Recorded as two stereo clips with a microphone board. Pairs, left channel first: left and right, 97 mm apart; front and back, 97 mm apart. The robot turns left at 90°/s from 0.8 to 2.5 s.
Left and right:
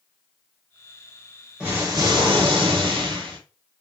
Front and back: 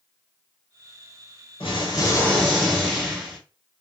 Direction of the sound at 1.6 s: 10° right.